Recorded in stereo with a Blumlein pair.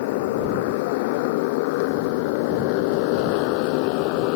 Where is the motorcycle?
50° left; by 4.4 s 45° left.